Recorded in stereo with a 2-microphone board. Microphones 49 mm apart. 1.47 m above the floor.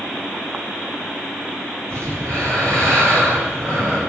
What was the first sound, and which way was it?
Breathing, 55° right (ahead or behind).